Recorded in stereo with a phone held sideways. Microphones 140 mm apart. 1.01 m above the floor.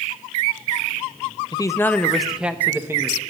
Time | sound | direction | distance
1.5 | a man speaking | 30° left (ahead or behind) | 0.5 m